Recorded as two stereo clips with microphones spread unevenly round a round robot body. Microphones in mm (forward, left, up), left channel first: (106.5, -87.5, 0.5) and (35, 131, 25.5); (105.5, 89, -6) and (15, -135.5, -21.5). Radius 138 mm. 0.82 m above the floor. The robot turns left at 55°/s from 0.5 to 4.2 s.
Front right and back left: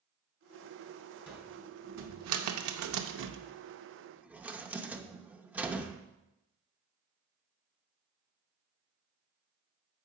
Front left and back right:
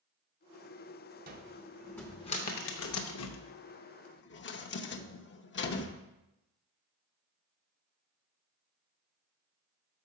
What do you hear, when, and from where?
1.3 s a cupboard door: 170° right, 0.7 m; by 6.0 s 30° left, 0.7 m